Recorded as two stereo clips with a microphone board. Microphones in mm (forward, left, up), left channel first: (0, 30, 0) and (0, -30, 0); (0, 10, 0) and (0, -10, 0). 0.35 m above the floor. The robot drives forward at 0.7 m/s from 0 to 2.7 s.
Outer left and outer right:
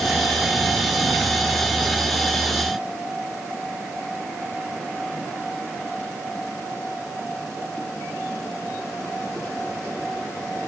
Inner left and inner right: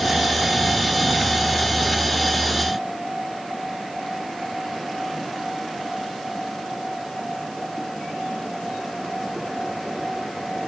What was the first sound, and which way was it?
Only background noise.